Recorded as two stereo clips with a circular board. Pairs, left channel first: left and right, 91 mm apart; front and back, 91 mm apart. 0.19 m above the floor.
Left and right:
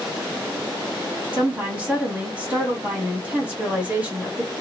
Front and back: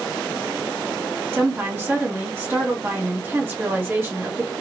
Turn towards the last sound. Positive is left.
turn(degrees=-150)